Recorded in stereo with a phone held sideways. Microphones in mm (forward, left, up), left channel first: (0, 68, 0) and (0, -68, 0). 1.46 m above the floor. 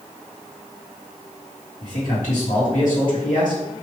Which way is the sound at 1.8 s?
70° left (ahead or behind).